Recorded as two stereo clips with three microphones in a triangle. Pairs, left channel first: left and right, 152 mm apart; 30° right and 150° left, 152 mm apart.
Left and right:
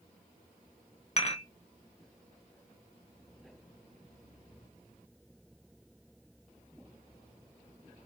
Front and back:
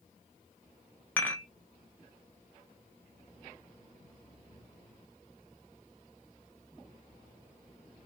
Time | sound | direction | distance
1.2 | dishes clattering | 45° left | 1.3 m